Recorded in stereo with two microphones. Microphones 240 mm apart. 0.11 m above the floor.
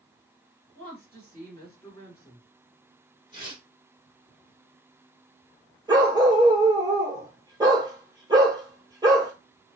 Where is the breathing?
I don't hear breathing.